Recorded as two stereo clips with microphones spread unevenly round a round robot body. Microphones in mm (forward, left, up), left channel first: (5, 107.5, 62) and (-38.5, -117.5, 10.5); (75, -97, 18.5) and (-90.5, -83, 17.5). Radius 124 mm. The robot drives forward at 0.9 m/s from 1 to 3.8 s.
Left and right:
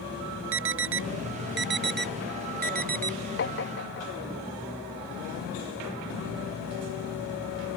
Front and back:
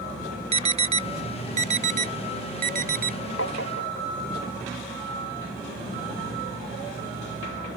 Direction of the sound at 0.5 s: 130° right.